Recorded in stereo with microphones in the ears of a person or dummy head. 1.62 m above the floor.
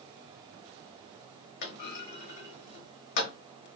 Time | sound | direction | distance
1.6 | a clunk | 55° left (ahead or behind) | 1.1 m